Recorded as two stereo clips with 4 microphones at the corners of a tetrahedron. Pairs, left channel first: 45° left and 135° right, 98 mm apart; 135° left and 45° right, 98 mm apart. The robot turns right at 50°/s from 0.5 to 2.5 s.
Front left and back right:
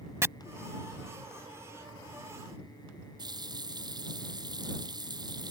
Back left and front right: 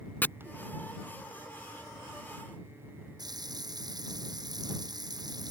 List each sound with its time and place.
0.2 s chopping: 175° right
3.2 s a running tap: 90° right